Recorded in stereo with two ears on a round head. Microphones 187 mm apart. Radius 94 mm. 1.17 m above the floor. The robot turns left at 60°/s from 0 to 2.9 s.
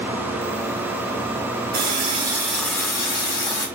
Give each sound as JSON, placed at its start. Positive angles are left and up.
{"t": 1.7, "sound": "a running tap", "azimuth_deg": -130, "distance_m": 1.1}